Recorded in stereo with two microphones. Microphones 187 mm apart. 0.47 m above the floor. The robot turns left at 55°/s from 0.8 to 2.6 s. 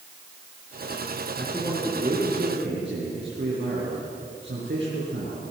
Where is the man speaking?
5° left, 6.5 m; by 5.4 s 65° right, 6.5 m.